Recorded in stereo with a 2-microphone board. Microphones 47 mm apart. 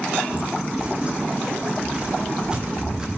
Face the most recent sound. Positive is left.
turn(degrees=-15)  # may be behind; listen again after turning